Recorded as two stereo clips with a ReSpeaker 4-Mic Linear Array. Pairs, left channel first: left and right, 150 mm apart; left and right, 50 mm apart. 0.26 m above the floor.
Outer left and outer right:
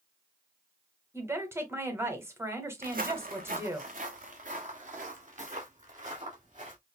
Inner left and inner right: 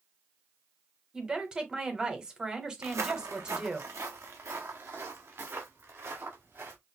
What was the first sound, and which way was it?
A woman speaking, 15° right (ahead or behind).